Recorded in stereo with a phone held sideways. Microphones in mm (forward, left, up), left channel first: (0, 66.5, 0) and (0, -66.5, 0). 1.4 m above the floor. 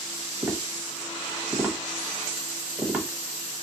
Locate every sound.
0.4 s tapping: 15° right (ahead or behind), 1.3 m